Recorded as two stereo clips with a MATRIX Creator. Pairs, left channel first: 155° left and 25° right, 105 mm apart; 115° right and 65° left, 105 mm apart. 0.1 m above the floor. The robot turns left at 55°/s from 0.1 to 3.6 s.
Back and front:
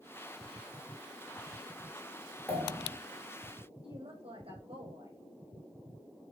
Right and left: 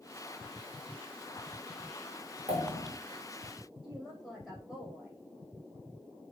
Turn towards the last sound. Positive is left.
turn(degrees=-20)